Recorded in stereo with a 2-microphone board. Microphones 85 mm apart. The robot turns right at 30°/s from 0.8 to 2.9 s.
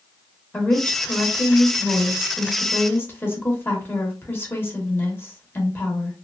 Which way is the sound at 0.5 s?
15° left (ahead or behind).